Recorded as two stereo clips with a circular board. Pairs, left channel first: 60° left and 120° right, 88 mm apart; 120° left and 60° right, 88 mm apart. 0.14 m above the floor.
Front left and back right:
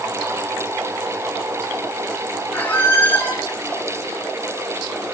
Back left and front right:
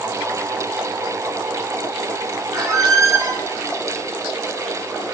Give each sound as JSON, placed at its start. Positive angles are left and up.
{"t": 2.5, "sound": "a squeak", "azimuth_deg": -10, "distance_m": 2.5}